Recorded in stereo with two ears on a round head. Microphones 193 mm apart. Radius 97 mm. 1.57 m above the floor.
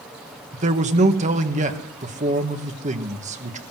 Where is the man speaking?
35° right (ahead or behind), 2.0 m.